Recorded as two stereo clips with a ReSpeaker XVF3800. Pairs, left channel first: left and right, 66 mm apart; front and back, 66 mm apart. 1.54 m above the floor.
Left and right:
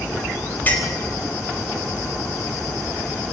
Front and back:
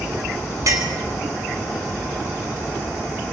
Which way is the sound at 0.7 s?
150° left.